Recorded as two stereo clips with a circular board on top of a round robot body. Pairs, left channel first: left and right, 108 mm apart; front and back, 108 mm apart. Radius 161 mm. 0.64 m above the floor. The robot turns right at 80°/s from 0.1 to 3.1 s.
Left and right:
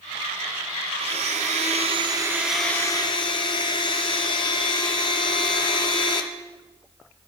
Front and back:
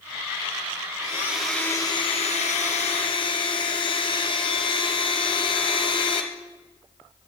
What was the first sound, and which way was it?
A blender, 120° right.